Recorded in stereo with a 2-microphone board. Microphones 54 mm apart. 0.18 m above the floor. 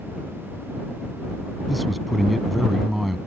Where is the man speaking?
Centre (ahead or behind).